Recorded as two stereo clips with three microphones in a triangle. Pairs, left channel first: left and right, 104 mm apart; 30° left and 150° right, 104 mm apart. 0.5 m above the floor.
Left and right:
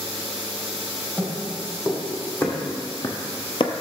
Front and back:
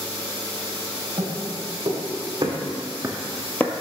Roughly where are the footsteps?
Behind.